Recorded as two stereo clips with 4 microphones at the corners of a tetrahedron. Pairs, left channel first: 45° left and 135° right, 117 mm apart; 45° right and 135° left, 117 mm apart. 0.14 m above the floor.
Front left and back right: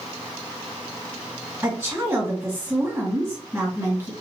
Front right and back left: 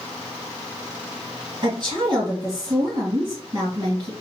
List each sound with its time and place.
1.6 s a woman speaking: 165° left, 2 m